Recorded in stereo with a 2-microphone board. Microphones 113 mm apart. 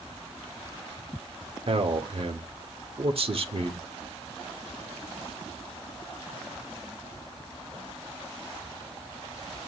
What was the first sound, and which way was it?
A man speaking, 55° right (ahead or behind).